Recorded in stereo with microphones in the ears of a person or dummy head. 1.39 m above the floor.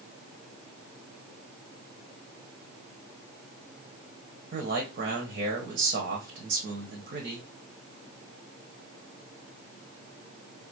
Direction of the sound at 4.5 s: 55° right (ahead or behind).